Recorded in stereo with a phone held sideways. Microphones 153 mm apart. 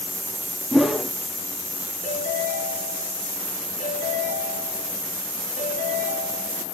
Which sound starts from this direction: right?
A ringtone, at 2.0 s.